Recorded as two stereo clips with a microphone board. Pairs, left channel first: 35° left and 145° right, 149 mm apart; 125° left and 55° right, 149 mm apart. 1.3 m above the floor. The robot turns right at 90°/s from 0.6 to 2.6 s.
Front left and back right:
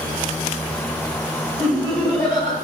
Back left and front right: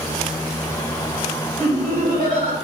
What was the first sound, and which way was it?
Laughter, 85° right.